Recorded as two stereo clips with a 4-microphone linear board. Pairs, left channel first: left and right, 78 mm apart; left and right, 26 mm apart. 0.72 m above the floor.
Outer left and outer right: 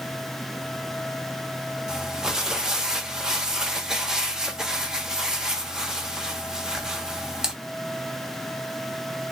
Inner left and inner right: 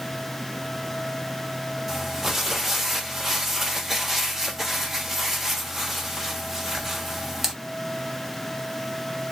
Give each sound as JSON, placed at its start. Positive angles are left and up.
{"t": 1.9, "sound": "crumpling", "side_deg": -10, "distance_m": 1.1}